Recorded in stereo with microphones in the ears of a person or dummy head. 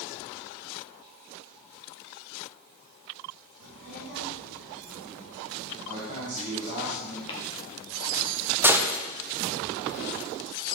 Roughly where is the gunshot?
Centre.